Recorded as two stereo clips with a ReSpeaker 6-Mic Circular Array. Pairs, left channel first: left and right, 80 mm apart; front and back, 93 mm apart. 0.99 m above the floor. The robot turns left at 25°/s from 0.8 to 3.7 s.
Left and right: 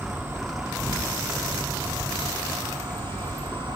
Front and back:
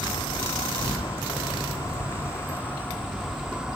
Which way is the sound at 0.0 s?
25° right.